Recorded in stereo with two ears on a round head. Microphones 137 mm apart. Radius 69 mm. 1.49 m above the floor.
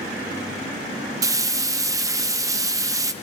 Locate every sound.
1.2 s frying: 20° right (ahead or behind), 0.9 m